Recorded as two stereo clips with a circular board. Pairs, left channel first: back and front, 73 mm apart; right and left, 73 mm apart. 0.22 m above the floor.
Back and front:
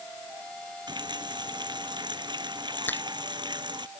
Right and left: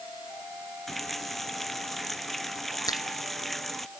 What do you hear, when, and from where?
0.9 s a running tap: straight ahead
2.9 s a finger snap: 115° right